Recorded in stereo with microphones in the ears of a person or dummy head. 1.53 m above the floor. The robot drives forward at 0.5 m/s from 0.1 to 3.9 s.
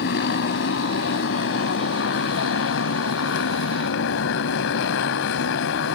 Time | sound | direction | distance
0.0 | a motorcycle | 60° left (ahead or behind) | ?